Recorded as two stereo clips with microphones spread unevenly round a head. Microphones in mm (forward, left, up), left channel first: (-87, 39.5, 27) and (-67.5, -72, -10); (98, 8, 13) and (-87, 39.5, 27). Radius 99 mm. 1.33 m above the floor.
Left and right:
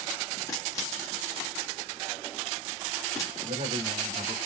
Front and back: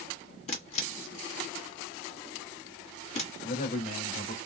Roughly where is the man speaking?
Ahead right.